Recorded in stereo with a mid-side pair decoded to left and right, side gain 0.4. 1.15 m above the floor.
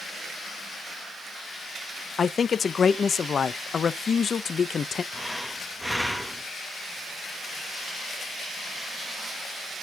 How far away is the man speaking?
About 0.6 m.